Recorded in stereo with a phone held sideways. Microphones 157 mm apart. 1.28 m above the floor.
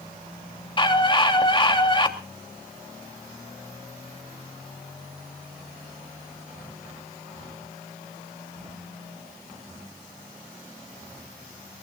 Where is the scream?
30° left (ahead or behind), 3 m.